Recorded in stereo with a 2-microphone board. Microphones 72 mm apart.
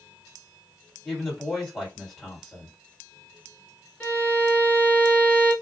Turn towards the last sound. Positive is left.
turn(degrees=20)  # may be behind; listen again after turning